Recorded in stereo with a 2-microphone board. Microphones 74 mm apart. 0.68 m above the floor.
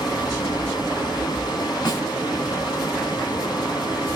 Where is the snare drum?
75° left (ahead or behind), 2 m.